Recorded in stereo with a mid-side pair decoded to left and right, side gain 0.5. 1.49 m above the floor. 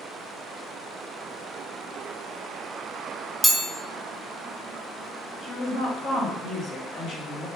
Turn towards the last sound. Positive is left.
turn(degrees=60)